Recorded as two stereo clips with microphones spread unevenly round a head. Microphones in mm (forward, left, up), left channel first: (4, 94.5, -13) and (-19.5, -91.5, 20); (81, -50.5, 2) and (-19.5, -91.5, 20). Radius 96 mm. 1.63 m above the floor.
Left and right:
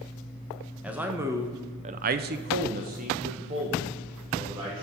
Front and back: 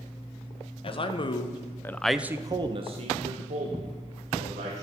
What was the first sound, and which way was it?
A man speaking, 15° right.